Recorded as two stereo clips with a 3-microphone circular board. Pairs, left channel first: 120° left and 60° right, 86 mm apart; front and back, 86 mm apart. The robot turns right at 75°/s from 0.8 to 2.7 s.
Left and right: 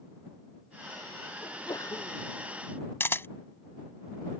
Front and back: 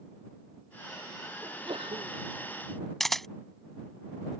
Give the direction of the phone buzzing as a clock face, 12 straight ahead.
I don't hear a phone buzzing.